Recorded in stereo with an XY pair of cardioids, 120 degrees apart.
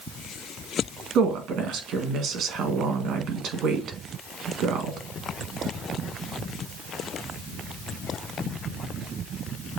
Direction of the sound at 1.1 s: 65° right.